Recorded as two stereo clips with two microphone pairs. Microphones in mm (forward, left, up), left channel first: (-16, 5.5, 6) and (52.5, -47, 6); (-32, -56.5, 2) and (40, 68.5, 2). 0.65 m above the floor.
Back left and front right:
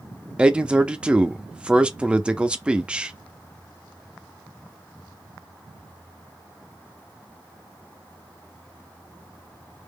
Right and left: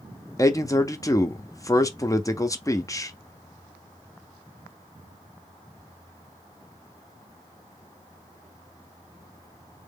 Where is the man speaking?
90° right, 0.5 m.